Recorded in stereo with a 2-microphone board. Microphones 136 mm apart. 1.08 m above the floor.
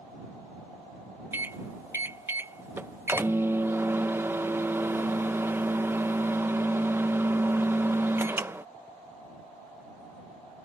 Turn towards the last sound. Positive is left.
turn(degrees=-15)  # may be behind; listen again after turning